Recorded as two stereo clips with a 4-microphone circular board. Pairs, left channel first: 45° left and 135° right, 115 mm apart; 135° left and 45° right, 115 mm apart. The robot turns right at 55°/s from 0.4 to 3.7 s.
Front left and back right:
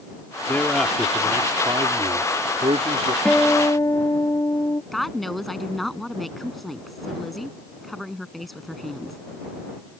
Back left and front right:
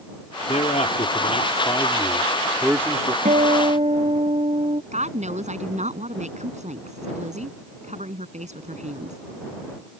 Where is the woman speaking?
45° right.